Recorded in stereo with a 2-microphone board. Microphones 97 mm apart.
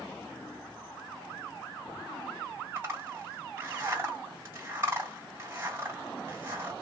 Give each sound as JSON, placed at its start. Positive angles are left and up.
{"t": 2.8, "sound": "a zipper", "side_deg": -30, "distance_m": 2.5}